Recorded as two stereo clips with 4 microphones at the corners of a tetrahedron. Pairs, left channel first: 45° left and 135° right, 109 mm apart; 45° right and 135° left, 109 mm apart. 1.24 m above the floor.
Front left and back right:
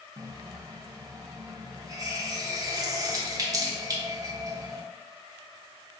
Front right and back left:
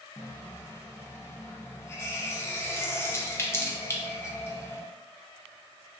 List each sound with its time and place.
0.2 s a running tap: 100° right, 0.5 m